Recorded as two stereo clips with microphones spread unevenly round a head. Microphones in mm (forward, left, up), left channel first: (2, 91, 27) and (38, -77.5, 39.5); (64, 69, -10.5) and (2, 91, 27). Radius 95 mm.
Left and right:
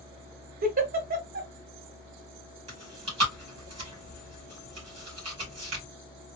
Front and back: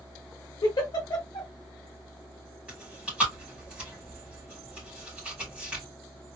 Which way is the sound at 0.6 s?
40° right.